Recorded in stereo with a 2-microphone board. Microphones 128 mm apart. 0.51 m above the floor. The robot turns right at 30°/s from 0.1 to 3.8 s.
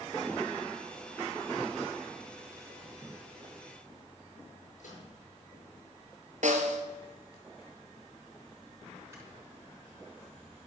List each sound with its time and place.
4.8 s a microwave: 70° left (ahead or behind), 7.5 m
6.4 s a snare drum: 70° right (ahead or behind), 1.6 m
9.1 s snoring: 20° right (ahead or behind), 4.5 m